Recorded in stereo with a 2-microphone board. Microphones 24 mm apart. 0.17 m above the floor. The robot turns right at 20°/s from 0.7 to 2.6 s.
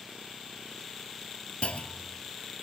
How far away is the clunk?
About 0.6 m.